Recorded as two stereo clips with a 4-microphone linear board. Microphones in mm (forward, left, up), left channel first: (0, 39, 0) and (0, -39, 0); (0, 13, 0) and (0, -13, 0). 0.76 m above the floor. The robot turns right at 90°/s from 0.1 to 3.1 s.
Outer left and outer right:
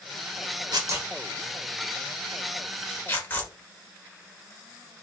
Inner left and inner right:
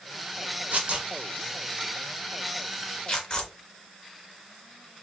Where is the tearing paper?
60° right (ahead or behind), 0.8 m; by 3.5 s 25° left (ahead or behind), 0.8 m.